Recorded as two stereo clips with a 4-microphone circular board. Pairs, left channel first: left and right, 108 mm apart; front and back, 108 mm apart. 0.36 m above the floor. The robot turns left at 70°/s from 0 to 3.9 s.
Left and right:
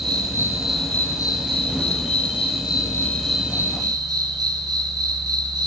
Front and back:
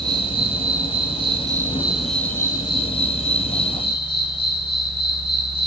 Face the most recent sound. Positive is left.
turn(degrees=-40)